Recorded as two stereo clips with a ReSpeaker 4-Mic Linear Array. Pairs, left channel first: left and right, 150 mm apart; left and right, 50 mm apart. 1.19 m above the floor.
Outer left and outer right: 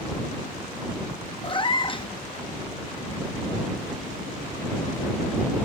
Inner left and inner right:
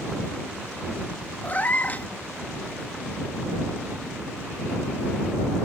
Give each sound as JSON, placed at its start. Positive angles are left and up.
{"t": 1.4, "sound": "a cat meowing", "side_deg": 35}